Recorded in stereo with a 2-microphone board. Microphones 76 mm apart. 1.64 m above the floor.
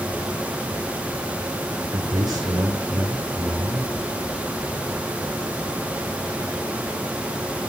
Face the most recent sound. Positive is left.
turn(degrees=-65)  # may be behind; listen again after turning